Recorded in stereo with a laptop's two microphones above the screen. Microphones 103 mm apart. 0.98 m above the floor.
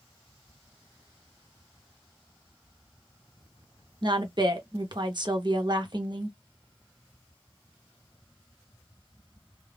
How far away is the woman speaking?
About 0.8 m.